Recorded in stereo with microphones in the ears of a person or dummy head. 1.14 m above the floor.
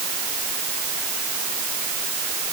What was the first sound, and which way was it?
Only background noise.